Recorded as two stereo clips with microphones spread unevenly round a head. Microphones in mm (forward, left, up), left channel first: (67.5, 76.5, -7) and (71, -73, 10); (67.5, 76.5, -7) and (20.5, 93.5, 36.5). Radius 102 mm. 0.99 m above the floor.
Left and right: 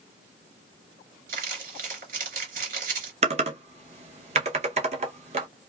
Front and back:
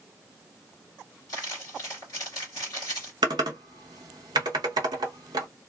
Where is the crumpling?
85° right, 2.5 m.